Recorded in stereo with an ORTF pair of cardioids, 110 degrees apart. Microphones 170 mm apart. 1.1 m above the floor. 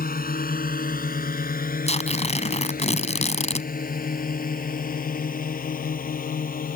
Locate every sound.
0.0 s a drone: 55° left
1.9 s tearing paper: 40° left